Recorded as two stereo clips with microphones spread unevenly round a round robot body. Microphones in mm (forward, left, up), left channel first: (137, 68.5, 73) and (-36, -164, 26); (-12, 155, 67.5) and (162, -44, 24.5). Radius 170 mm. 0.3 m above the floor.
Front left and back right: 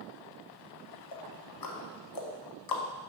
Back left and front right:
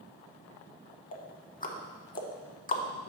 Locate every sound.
1.1 s ticking: 70° left, 1.1 m